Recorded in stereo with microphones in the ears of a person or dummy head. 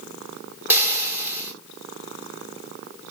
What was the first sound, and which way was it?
Frying, 20° right (ahead or behind).